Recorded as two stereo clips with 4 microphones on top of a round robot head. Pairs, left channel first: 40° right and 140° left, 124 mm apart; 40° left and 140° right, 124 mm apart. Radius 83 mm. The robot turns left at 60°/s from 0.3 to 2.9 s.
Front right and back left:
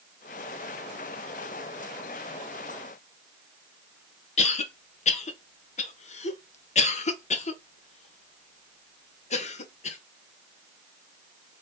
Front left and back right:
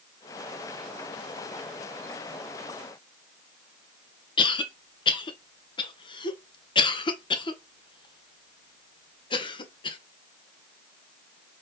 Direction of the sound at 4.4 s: 10° right.